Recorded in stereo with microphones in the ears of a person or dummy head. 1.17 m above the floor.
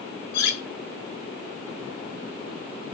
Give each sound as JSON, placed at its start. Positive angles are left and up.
{"t": 0.3, "sound": "cutlery clinking", "side_deg": 60, "distance_m": 0.6}